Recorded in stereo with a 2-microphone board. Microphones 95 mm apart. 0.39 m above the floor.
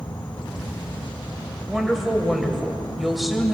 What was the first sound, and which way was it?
An insect, 50° left (ahead or behind).